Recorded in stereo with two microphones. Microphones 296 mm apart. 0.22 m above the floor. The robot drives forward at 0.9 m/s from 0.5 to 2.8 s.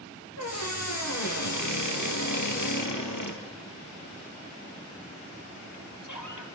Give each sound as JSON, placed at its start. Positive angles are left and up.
{"t": 0.4, "sound": "a squeak", "side_deg": 60, "distance_m": 4.0}